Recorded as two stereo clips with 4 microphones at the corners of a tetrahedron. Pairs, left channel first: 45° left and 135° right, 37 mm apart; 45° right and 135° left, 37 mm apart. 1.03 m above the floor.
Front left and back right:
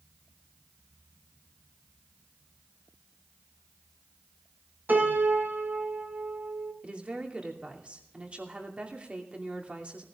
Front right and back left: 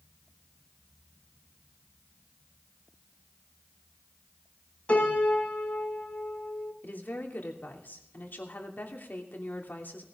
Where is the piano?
100° right, 5.5 m.